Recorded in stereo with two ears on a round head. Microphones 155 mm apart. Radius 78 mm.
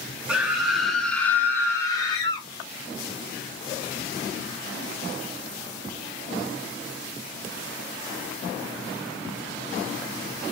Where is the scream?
5° right (ahead or behind), 1.3 m; by 2.5 s 30° left (ahead or behind), 1.2 m.